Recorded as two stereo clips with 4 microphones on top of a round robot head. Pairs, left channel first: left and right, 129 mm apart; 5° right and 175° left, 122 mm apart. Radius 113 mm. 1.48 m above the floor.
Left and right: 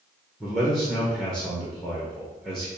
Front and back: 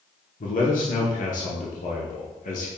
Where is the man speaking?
Straight ahead, 0.9 m.